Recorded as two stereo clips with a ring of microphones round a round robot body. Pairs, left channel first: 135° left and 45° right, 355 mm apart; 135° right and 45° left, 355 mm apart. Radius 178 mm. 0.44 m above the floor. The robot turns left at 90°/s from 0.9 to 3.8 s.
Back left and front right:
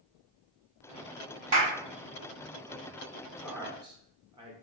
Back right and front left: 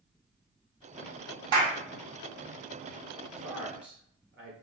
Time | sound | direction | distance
1.5 | a clap | 25° left | 2 m
3.4 | a man speaking | 60° left | 1.3 m